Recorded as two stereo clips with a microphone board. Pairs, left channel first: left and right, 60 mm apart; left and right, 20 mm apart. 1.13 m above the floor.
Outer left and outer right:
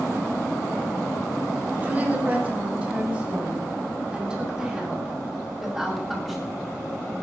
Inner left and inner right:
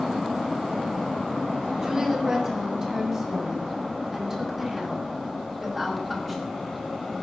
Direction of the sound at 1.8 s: 30° right (ahead or behind).